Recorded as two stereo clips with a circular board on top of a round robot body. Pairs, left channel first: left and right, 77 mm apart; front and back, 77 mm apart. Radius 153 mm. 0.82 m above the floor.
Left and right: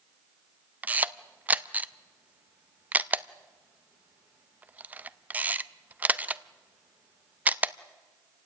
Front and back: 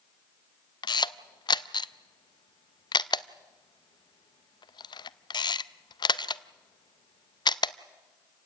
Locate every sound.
0.8 s a camera shutter: 20° right, 0.6 m